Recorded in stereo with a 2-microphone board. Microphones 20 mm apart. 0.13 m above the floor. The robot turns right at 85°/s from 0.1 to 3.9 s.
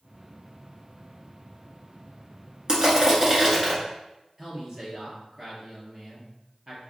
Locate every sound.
2.7 s crushing: 105° right, 1.7 m; by 3.8 s 10° right, 1.7 m
4.4 s a man speaking: 25° right (ahead or behind), 2 m